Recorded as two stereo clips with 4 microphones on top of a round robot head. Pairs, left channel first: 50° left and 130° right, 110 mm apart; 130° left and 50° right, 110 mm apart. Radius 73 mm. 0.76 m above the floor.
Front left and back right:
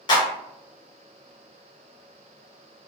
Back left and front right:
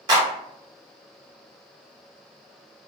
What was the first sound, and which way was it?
A clap, straight ahead.